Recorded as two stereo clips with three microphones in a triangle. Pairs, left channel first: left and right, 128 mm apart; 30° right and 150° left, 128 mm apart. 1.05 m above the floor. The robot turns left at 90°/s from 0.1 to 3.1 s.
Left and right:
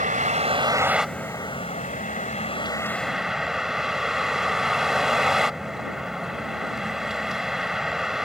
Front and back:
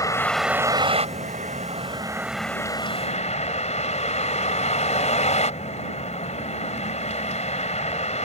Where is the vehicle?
95° right; by 8.3 s 5° right.